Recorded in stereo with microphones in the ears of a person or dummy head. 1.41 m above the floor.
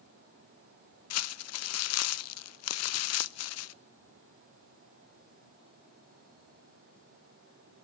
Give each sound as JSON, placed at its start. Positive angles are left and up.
{"t": 1.1, "sound": "crumpling", "side_deg": 70, "distance_m": 0.5}